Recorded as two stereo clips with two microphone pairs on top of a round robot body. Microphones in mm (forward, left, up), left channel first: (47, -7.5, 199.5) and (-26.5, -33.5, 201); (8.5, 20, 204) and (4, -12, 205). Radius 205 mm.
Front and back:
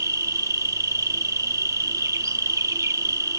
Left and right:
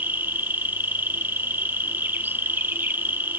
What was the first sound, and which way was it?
An insect, 110° right.